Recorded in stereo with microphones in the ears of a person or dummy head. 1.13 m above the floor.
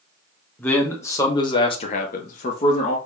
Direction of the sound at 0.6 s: 10° left (ahead or behind).